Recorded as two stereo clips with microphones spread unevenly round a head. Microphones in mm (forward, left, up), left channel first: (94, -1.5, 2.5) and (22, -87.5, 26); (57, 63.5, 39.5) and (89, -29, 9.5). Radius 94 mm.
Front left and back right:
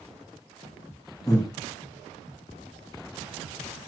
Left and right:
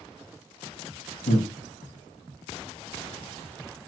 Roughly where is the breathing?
Behind left.